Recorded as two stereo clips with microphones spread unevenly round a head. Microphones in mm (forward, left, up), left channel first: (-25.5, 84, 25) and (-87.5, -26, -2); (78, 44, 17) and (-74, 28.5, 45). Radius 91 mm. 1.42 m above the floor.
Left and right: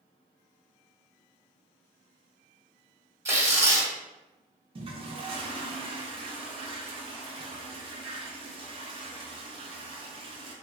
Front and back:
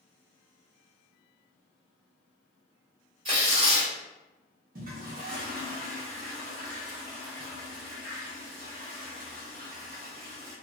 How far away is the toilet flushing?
About 0.7 m.